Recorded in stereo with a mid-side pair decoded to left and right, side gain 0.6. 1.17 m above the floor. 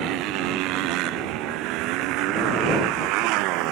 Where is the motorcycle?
70° right; by 3.7 s 75° right.